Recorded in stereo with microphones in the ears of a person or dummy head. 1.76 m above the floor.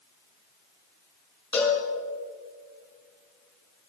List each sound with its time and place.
1.5 s a cowbell: 20° left (ahead or behind), 5.5 m